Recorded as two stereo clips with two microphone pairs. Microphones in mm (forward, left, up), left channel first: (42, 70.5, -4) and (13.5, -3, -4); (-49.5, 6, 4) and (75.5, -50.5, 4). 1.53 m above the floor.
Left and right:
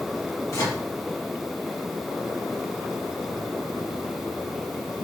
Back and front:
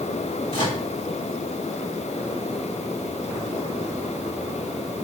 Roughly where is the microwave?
Left.